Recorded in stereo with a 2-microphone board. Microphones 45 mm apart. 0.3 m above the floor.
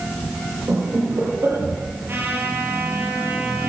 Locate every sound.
0.7 s laughter: 80° right, 10 m
2.1 s a trumpet: 55° right (ahead or behind), 6.5 m